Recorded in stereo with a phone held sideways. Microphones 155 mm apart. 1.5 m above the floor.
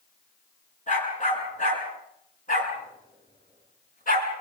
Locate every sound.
0.9 s a dog barking: 55° left (ahead or behind), 8 m; by 4.3 s 65° left (ahead or behind), 6 m